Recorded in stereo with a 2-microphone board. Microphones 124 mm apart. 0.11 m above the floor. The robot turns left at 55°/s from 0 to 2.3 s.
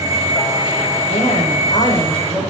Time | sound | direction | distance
1.1 | a woman speaking | 65° left | 6.5 m